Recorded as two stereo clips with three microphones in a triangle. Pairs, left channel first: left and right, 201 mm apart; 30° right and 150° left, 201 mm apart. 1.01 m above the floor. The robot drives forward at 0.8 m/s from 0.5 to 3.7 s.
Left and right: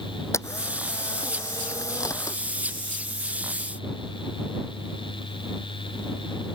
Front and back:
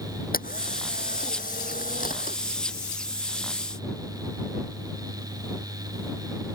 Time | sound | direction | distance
0.3 | a camera shutter | 15° left | ?